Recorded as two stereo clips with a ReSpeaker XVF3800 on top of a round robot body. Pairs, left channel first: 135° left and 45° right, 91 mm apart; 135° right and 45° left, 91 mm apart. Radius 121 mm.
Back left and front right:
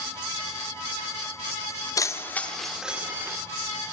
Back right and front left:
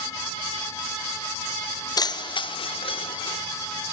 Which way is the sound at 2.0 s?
175° right.